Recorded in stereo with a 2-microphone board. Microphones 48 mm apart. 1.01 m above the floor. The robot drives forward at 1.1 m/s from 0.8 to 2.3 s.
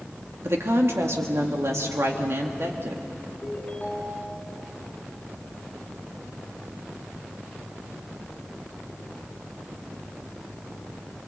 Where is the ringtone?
15° left (ahead or behind), 5 m.